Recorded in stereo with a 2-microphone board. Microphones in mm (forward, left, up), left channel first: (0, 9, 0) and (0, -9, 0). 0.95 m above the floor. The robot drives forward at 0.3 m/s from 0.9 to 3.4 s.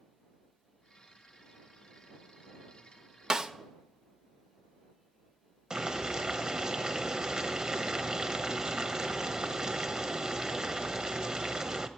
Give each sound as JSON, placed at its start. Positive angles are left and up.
{"t": 3.3, "sound": "a snare drum", "side_deg": -35, "distance_m": 0.7}
{"t": 5.7, "sound": "boiling", "side_deg": -30, "distance_m": 1.0}